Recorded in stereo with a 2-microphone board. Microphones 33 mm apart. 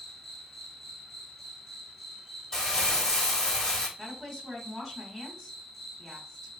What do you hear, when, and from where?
0.0 s an insect: 15° left (ahead or behind), 1.4 m
2.5 s crumpling: 20° left (ahead or behind), 1.3 m
4.0 s a woman speaking: 5° left (ahead or behind), 1.2 m